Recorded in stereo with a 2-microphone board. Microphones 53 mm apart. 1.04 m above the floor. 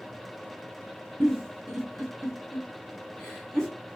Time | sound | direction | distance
1.2 | a giggle | 5° left (ahead or behind) | 1.6 m